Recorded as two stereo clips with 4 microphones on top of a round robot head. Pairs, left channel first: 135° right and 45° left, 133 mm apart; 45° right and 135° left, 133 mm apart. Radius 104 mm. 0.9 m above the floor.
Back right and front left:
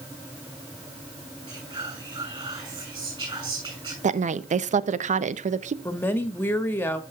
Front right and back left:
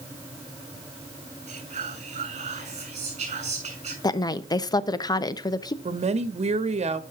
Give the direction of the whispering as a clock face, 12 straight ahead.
9 o'clock.